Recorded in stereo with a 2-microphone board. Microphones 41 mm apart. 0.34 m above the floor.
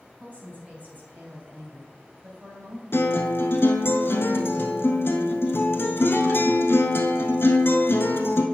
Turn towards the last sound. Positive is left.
turn(degrees=85)